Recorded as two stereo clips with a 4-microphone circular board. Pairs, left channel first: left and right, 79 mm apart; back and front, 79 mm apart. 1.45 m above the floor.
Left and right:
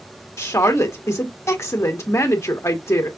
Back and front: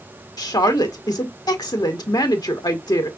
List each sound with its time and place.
0.4 s a woman speaking: 145° left, 1.3 m